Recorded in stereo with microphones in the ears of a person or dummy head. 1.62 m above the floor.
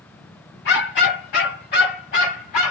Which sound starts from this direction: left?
A dog barking, at 0.7 s.